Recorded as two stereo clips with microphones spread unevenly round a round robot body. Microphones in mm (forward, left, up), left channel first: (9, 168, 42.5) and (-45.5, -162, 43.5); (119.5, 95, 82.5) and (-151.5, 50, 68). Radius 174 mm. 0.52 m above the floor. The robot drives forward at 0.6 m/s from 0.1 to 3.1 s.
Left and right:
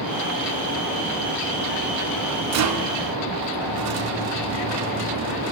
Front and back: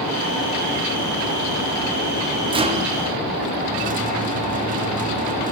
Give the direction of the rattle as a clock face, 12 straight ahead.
4 o'clock.